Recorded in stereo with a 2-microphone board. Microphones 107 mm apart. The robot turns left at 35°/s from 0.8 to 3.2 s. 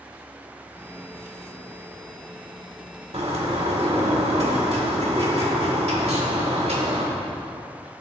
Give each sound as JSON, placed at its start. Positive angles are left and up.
{"t": 3.1, "sound": "a bird", "side_deg": -75, "distance_m": 1.4}